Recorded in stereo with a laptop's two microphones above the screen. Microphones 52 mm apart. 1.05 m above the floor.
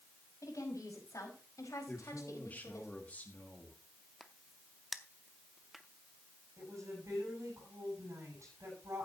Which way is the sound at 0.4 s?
85° left.